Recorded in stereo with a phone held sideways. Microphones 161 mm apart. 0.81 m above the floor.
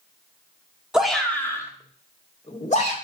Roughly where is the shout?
Centre.